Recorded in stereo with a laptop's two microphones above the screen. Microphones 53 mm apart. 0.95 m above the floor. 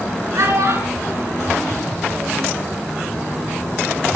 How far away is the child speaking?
About 7.5 m.